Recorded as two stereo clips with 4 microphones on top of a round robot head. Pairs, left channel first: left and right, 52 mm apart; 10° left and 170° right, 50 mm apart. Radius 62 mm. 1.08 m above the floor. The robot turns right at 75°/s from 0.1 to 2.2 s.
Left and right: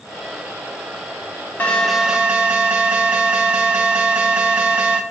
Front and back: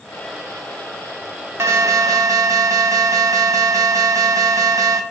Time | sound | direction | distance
1.6 | an alarm | 155° left | 0.7 m